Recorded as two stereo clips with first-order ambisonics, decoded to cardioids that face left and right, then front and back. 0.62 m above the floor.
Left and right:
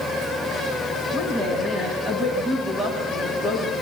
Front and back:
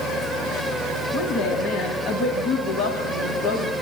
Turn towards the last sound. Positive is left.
turn(degrees=-15)